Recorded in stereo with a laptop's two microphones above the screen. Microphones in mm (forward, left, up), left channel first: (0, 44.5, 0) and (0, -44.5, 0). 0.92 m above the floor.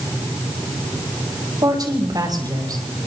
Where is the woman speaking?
50° right (ahead or behind), 5.5 m.